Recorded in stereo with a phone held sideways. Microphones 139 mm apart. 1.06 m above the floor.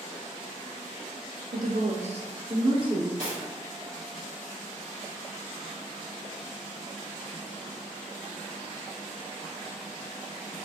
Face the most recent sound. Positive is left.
turn(degrees=-70)  # may be behind; listen again after turning